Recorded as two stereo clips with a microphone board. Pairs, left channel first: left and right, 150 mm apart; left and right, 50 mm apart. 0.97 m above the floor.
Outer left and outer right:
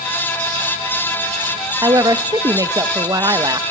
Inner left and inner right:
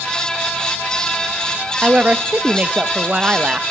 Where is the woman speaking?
25° right (ahead or behind), 1.1 m.